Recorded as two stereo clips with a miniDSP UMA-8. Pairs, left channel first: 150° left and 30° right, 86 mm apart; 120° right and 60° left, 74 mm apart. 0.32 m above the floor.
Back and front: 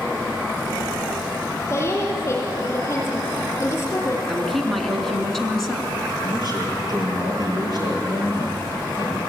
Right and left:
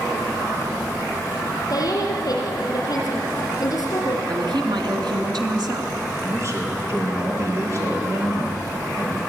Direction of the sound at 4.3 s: 65° left.